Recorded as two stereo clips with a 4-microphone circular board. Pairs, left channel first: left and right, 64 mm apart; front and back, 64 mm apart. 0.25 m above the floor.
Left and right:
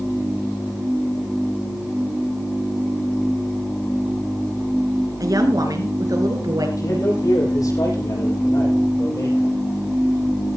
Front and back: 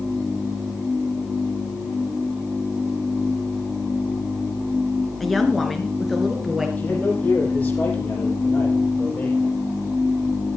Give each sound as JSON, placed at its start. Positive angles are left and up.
{"t": 5.2, "sound": "a woman speaking", "azimuth_deg": -90, "distance_m": 3.5}
{"t": 6.8, "sound": "a man speaking", "azimuth_deg": 65, "distance_m": 9.5}